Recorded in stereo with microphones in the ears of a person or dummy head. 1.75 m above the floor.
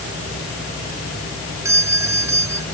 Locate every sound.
1.6 s a doorbell: 10° right (ahead or behind)